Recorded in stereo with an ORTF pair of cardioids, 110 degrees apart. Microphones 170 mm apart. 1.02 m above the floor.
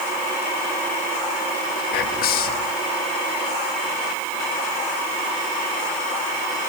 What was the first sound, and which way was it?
Whispering, 70° left.